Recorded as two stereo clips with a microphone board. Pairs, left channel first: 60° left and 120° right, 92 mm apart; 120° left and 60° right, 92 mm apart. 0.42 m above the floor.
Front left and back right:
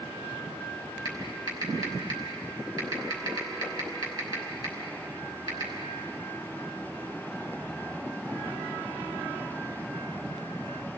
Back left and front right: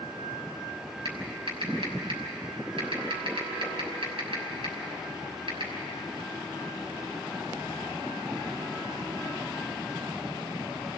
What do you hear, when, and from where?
1.1 s typing on a keyboard: 80° right, 6 m